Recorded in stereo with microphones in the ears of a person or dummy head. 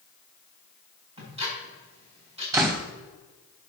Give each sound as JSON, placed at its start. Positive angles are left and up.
{"t": 1.2, "sound": "ticking", "side_deg": -30, "distance_m": 5.5}
{"t": 2.5, "sound": "a door slam", "side_deg": -15, "distance_m": 1.4}